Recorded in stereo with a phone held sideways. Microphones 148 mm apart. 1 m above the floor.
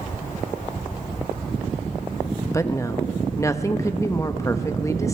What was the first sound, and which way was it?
A woman speaking, 20° left (ahead or behind).